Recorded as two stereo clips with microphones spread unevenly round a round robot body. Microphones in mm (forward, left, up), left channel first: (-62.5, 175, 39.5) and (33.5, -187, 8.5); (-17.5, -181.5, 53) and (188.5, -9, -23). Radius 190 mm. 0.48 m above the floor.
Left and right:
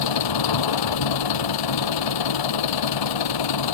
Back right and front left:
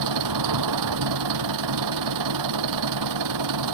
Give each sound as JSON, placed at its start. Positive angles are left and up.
{"t": 0.0, "sound": "an engine running", "azimuth_deg": 70}